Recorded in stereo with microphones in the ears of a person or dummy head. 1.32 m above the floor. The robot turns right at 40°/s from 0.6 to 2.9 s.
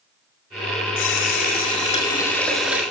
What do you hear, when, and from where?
1.0 s a running tap: 115° left, 2.5 m; by 2.8 s 170° right, 2.5 m